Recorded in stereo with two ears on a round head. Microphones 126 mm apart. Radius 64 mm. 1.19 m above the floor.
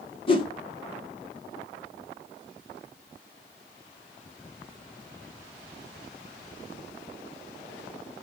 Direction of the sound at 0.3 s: 35° left (ahead or behind).